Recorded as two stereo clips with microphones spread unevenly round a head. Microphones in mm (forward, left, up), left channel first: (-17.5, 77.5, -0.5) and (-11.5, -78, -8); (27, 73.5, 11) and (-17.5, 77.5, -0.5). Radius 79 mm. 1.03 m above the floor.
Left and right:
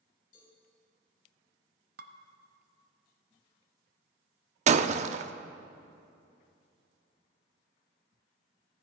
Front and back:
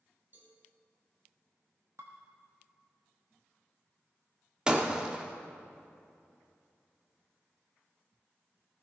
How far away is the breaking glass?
About 0.6 m.